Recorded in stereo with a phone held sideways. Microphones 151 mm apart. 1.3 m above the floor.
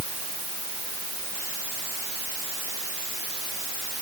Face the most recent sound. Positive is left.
No sound to turn to.